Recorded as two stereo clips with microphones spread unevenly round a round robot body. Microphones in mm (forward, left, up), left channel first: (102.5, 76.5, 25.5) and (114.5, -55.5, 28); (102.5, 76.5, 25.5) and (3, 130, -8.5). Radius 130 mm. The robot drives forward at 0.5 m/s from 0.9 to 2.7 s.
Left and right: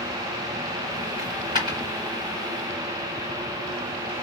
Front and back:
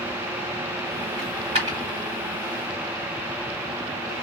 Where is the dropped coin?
155° right, 1.5 m; by 1.8 s 160° right, 1.8 m.